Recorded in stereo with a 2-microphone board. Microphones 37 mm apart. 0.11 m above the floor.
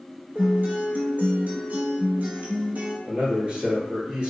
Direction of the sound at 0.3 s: 55° right (ahead or behind).